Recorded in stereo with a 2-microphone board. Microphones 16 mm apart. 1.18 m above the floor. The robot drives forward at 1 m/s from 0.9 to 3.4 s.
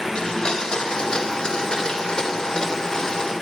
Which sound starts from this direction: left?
A blender, at 0.1 s.